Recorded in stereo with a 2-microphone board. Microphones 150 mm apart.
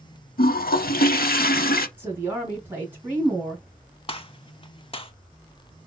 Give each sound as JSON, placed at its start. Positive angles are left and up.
{"t": 0.4, "sound": "a toilet flushing", "side_deg": 80, "distance_m": 0.6}
{"t": 2.0, "sound": "a woman speaking", "side_deg": -15, "distance_m": 2.5}
{"t": 4.1, "sound": "a gunshot", "side_deg": 40, "distance_m": 0.6}